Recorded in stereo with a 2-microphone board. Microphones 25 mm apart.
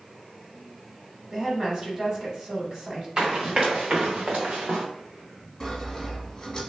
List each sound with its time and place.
1.3 s a woman speaking: 25° right (ahead or behind), 1.1 m
3.2 s running footsteps: 30° right (ahead or behind), 1.4 m; by 4.8 s 80° right, 1.0 m
5.6 s sawing: 15° left (ahead or behind), 1.2 m